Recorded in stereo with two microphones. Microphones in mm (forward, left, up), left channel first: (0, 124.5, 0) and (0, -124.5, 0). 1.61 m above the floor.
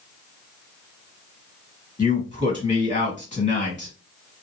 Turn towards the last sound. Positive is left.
turn(degrees=30)  # may be behind; listen again after turning